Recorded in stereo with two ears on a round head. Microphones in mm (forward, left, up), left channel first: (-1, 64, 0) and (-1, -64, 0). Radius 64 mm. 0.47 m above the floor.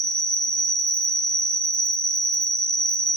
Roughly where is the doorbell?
No doorbell in this recording.